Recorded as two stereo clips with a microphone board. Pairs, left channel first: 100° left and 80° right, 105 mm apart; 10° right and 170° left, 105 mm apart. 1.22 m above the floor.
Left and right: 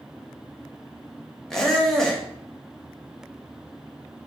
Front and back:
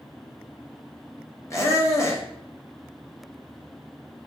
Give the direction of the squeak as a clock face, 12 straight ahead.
11 o'clock.